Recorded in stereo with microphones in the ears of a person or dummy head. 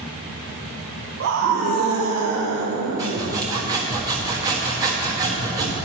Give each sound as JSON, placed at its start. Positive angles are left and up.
{"t": 1.2, "sound": "a scream", "side_deg": -65, "distance_m": 1.0}
{"t": 3.0, "sound": "sawing", "side_deg": -20, "distance_m": 1.2}